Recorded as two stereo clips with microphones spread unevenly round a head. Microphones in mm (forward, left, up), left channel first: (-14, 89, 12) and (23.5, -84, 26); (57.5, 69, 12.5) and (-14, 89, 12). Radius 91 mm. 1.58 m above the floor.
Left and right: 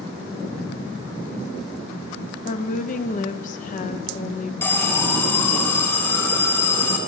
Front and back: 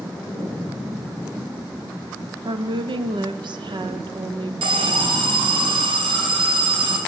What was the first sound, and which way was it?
A woman speaking, 150° left.